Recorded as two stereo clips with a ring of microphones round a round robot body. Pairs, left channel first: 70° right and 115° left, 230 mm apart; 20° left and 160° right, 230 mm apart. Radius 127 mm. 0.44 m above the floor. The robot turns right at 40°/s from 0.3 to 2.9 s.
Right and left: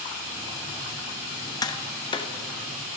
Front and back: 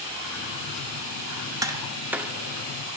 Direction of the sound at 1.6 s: 110° right.